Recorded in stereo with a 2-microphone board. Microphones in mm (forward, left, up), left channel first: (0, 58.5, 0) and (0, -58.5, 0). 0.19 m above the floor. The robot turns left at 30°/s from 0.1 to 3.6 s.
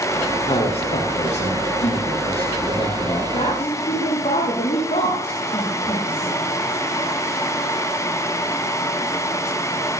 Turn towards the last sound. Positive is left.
turn(degrees=70)  # may be behind; listen again after turning